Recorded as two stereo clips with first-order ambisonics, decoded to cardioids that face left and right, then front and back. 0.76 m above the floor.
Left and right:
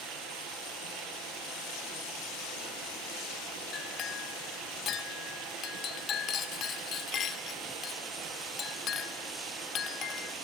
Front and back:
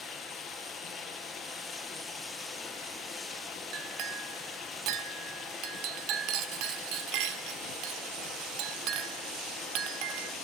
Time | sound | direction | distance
0.0 | running water | 70° right | 5.5 m
3.7 | a clink | 150° left | 1.4 m